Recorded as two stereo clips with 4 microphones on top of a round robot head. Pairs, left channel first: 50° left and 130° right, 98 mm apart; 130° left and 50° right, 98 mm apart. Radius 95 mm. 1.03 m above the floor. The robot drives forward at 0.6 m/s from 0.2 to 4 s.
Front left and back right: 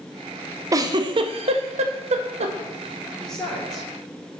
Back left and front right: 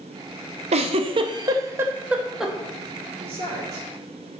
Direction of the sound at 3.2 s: 30° right.